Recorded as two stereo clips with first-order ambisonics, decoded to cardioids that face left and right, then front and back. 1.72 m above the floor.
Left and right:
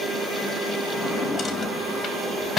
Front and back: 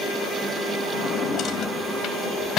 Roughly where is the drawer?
Ahead.